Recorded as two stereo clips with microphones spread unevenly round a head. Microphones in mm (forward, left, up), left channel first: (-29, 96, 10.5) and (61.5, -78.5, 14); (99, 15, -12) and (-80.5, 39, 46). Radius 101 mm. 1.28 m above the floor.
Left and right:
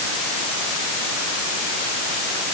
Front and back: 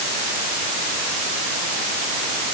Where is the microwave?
No microwave in this recording.